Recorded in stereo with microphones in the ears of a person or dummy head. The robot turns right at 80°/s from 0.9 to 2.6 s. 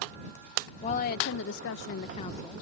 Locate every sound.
0.8 s a woman speaking: 40° left; by 2.6 s straight behind